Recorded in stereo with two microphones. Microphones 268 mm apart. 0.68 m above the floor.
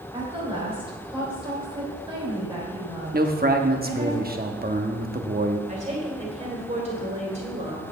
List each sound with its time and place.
0.1 s a woman speaking: 20° right (ahead or behind), 3.5 m
3.1 s a man speaking: 35° right (ahead or behind), 0.9 m
5.7 s a woman speaking: 25° right (ahead or behind), 2.5 m